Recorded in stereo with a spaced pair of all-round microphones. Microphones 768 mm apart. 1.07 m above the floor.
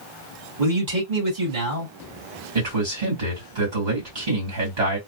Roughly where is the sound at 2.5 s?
Right.